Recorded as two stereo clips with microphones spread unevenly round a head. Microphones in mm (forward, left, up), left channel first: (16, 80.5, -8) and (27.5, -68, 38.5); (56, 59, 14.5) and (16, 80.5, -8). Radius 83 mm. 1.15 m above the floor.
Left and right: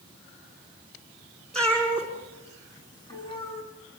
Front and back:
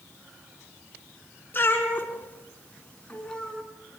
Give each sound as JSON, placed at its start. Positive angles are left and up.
{"t": 1.5, "sound": "a cat meowing", "azimuth_deg": 5, "distance_m": 4.5}